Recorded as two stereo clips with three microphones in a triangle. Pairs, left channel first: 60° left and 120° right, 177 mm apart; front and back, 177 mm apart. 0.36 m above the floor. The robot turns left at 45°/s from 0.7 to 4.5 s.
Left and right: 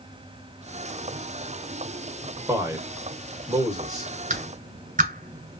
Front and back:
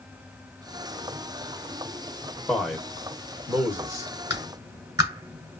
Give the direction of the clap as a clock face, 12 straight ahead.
4 o'clock.